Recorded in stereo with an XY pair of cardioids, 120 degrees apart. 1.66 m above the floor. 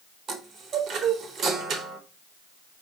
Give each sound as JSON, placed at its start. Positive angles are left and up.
{"t": 0.3, "sound": "a chime", "azimuth_deg": -55, "distance_m": 0.9}